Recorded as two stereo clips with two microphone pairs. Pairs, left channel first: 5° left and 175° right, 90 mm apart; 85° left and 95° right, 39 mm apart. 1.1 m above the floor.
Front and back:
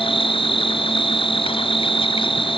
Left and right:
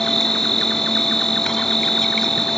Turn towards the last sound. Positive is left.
turn(degrees=10)